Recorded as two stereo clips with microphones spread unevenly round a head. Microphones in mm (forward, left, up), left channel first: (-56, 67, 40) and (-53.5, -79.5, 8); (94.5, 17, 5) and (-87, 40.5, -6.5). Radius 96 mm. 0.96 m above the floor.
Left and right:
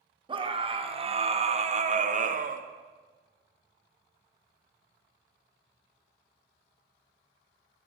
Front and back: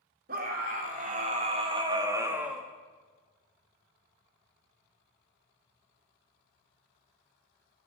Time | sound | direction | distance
0.3 | a scream | 140° right | 2.5 m